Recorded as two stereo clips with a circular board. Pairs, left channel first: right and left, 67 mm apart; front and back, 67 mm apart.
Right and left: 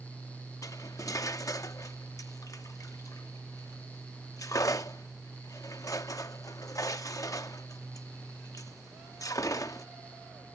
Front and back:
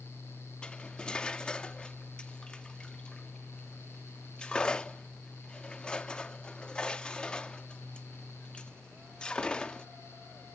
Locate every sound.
0.6 s cutlery clinking: 75° right